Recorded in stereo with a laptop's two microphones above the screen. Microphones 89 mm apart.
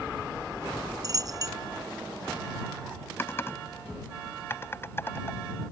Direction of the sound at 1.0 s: 45° right (ahead or behind).